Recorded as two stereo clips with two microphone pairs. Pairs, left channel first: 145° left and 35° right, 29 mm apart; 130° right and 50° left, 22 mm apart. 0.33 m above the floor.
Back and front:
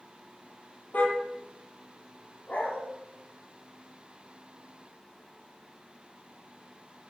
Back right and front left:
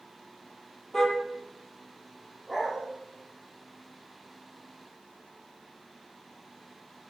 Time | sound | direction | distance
0.9 | a car horn | 155° left | 5 m
2.5 | a dog barking | 125° left | 5.5 m